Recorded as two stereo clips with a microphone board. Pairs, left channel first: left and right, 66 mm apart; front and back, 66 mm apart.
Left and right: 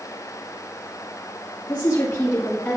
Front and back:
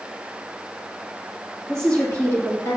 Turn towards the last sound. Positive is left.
turn(degrees=35)